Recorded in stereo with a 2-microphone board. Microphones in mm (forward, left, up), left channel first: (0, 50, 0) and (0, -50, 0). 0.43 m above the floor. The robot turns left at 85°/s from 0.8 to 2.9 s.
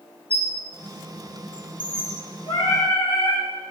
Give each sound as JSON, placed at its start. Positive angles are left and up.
{"t": 0.3, "sound": "a squeak", "side_deg": 70, "distance_m": 1.8}
{"t": 2.5, "sound": "singing", "azimuth_deg": 105, "distance_m": 3.0}